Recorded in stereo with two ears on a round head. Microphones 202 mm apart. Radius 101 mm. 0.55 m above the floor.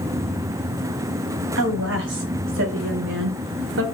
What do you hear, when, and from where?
1.6 s a woman speaking: 60° right (ahead or behind), 3.5 m; by 3.8 s 55° right (ahead or behind), 2 m